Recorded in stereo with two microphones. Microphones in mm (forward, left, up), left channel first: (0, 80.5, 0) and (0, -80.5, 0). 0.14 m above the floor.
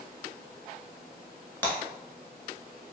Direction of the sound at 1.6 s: 10° left (ahead or behind).